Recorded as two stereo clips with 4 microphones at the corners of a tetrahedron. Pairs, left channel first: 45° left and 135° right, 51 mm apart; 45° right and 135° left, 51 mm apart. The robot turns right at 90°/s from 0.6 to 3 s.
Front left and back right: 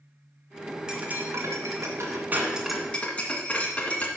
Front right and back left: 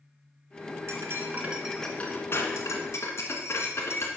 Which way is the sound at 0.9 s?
150° left.